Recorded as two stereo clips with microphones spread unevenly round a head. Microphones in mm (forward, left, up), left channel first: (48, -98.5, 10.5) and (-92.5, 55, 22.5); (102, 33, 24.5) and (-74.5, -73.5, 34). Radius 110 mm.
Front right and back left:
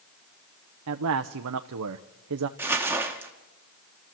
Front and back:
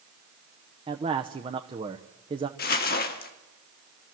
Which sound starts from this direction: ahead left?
Crumpling, at 2.6 s.